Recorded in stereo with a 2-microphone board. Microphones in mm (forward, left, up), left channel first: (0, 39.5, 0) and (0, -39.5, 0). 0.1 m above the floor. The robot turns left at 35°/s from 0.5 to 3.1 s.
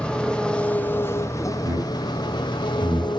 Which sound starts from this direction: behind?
An engine running, at 0.0 s.